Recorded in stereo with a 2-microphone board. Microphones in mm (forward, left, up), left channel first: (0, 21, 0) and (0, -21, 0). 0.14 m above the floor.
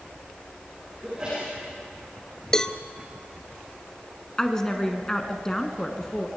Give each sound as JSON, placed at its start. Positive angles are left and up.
{"t": 1.0, "sound": "a sneeze", "side_deg": -25, "distance_m": 6.5}
{"t": 2.5, "sound": "a cowbell", "side_deg": 15, "distance_m": 0.6}
{"t": 4.4, "sound": "a woman speaking", "side_deg": 15, "distance_m": 1.3}